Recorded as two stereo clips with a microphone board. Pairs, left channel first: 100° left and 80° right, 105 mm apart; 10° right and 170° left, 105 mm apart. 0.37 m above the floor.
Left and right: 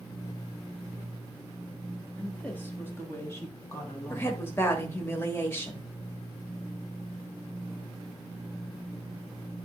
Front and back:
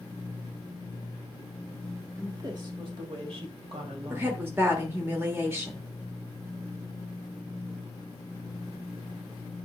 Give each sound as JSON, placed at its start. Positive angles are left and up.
{"t": 2.2, "sound": "a woman speaking", "azimuth_deg": 165, "distance_m": 1.2}
{"t": 4.1, "sound": "a woman speaking", "azimuth_deg": 130, "distance_m": 1.3}